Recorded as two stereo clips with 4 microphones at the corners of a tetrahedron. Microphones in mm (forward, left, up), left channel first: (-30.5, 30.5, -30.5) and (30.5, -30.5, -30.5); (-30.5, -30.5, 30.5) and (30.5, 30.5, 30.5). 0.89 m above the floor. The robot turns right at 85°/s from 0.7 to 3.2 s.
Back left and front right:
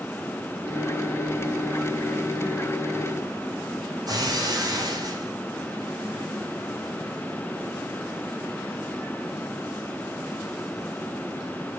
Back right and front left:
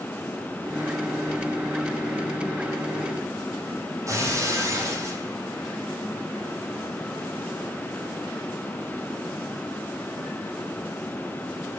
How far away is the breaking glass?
About 9.5 m.